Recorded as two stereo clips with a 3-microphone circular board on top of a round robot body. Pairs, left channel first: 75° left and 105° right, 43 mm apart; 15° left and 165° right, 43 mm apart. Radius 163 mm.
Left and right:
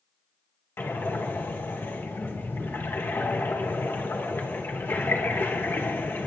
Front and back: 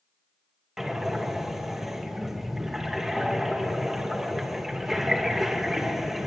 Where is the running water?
No running water in this recording.